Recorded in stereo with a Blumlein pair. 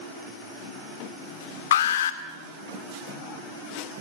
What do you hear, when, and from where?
1.7 s an alarm: 60° left, 2 m